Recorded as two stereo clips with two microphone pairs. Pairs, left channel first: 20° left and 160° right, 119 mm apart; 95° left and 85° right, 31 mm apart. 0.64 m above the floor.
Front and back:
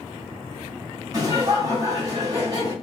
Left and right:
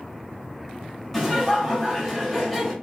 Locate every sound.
1.1 s laughter: 165° left, 1.3 m